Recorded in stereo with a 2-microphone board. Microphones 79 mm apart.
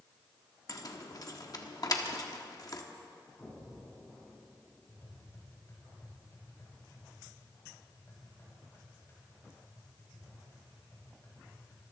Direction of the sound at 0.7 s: 50° left (ahead or behind).